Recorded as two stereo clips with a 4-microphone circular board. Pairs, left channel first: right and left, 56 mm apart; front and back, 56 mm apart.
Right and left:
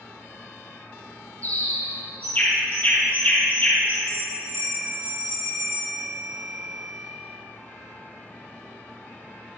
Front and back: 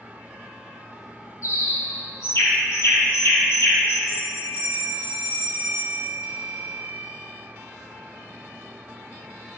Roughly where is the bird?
Ahead right.